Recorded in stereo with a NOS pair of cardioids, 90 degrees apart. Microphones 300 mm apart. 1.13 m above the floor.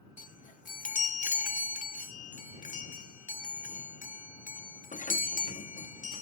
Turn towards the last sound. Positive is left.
turn(degrees=25)